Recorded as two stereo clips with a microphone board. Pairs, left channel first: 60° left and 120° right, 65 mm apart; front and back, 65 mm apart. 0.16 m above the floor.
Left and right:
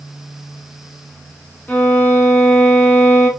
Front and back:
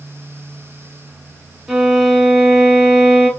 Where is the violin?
100° left, 0.9 m.